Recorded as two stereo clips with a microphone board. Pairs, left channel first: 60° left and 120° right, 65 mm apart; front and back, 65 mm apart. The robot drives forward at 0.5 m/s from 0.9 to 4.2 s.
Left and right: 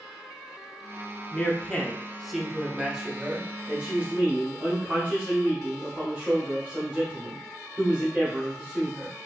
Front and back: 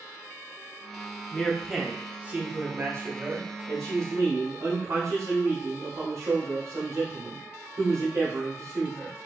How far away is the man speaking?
About 0.8 m.